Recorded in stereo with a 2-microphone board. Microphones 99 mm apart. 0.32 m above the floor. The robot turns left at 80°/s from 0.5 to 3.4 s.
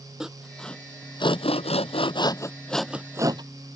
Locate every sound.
0.2 s sawing: 5° right (ahead or behind); by 3.4 s 45° right (ahead or behind)